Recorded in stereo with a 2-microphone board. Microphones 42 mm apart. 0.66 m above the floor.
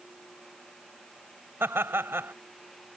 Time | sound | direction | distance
1.6 | laughter | 75° right (ahead or behind) | ?